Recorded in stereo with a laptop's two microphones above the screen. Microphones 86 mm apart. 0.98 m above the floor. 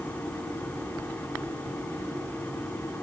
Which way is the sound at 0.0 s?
20° left (ahead or behind).